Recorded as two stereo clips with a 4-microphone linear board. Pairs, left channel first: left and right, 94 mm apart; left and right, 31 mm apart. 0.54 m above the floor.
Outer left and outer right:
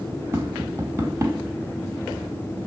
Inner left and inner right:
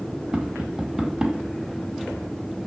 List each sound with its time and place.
0.3 s tapping: 25° right (ahead or behind), 1.0 m